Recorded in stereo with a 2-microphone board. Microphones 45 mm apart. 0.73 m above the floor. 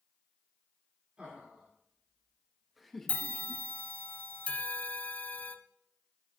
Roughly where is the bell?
Left.